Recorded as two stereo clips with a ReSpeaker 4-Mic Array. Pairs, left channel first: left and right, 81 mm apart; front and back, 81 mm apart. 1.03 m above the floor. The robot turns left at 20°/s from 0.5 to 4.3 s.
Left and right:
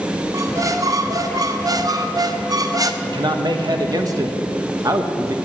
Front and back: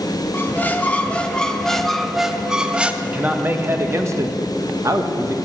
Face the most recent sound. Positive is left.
turn(degrees=-130)